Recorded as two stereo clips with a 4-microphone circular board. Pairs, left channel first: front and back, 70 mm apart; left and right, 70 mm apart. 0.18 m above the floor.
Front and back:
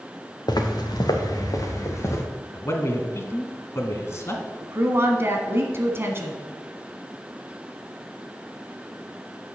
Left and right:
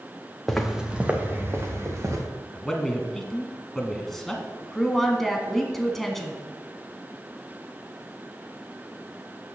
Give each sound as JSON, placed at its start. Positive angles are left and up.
{"t": 0.5, "sound": "footsteps", "azimuth_deg": 5, "distance_m": 1.5}
{"t": 2.5, "sound": "a man speaking", "azimuth_deg": 5, "distance_m": 1.3}
{"t": 4.6, "sound": "a woman speaking", "azimuth_deg": 175, "distance_m": 1.3}